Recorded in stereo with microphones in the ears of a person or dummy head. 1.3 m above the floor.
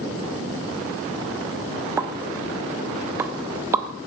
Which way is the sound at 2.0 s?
10° right (ahead or behind).